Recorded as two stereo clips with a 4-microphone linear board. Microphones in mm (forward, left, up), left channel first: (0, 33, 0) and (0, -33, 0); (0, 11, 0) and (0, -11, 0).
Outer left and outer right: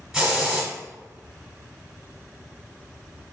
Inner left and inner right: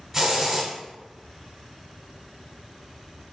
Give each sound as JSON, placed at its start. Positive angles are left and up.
{"t": 0.1, "sound": "a hiss", "side_deg": -15, "distance_m": 1.1}